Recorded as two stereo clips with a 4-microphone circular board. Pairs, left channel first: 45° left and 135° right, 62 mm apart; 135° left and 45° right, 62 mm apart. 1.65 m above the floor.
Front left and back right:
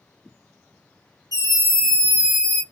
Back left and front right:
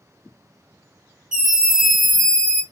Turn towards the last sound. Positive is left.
turn(degrees=70)